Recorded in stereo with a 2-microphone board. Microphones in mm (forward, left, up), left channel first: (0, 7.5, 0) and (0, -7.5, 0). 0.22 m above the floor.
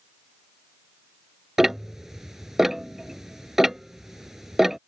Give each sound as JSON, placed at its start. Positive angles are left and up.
{"t": 1.6, "sound": "ticking", "side_deg": -25}